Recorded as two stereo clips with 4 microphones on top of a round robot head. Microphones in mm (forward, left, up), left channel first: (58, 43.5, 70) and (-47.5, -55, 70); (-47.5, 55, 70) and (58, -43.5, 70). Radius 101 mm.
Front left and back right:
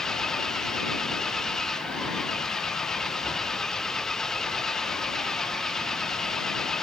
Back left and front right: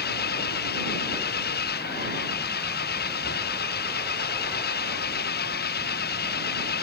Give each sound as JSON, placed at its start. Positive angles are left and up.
{"t": 0.0, "sound": "an engine running", "azimuth_deg": 130}